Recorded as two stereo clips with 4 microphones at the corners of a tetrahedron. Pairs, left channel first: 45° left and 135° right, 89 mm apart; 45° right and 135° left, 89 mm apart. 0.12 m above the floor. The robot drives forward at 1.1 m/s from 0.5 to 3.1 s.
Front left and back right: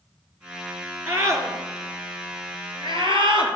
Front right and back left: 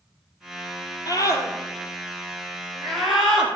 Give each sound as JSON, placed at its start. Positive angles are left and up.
{"t": 1.1, "sound": "a scream", "azimuth_deg": -75, "distance_m": 2.0}